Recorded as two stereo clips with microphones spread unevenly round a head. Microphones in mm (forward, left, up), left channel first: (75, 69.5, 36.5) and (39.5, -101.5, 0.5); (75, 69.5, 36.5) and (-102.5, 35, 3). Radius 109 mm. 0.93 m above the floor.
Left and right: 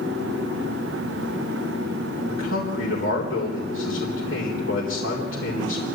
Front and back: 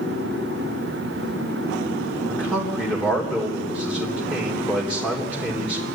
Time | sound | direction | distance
2.3 | a man speaking | 95° left | 3.5 m